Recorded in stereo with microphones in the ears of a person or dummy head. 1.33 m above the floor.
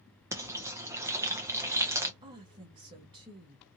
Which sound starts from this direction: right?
A woman speaking, at 2.2 s.